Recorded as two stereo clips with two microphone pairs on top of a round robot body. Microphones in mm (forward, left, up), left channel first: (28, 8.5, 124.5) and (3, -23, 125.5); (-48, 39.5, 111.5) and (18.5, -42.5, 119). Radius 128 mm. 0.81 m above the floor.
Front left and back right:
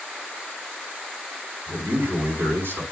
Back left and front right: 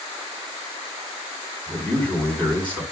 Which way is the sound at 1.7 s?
150° right.